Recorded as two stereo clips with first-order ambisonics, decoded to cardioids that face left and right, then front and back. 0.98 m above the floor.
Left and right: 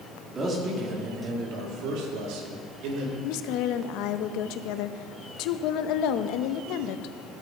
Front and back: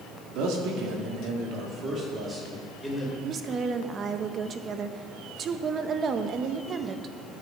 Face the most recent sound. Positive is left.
turn(degrees=120)